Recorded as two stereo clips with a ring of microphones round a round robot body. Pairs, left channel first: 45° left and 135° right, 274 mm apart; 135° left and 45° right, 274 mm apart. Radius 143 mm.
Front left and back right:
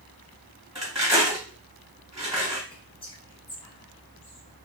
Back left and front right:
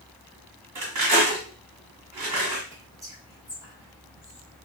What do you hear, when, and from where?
0.8 s cutlery clinking: 55° right, 1.5 m
2.7 s whispering: 10° left, 1.0 m